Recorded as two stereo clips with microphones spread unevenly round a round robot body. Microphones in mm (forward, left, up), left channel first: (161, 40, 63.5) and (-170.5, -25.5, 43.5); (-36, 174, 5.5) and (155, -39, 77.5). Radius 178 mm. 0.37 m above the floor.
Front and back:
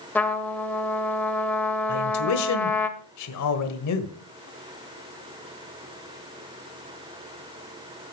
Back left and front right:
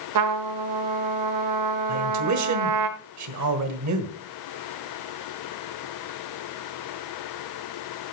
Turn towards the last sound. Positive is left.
turn(degrees=-25)